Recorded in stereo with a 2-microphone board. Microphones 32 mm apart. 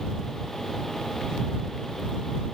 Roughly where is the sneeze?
No sneeze in this recording.